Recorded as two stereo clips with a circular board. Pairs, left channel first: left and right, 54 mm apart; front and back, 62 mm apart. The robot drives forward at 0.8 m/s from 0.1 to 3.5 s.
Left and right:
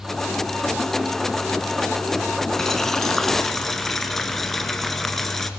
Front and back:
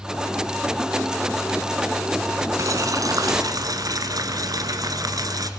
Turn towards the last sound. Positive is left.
turn(degrees=175)